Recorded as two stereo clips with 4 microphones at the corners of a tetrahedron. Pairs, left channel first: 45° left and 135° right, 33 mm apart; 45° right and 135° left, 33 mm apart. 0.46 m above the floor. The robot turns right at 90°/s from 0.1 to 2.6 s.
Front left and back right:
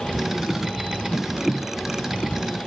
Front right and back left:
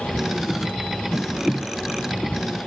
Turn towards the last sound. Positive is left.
No sound to turn to.